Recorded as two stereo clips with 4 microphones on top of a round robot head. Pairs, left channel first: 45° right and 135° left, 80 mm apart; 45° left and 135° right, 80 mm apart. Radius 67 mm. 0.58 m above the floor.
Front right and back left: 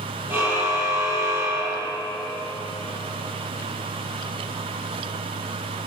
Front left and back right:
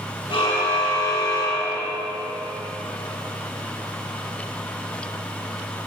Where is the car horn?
75° left, 9.5 m; by 2.0 s 85° left, 11.5 m.